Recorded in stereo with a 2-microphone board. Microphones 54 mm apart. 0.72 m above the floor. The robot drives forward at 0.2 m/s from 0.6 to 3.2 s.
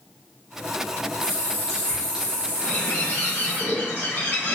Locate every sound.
1.2 s a running tap: 80° left, 1.8 m; by 3.6 s 70° left (ahead or behind), 1.9 m
2.6 s a bird: 45° left (ahead or behind), 1.4 m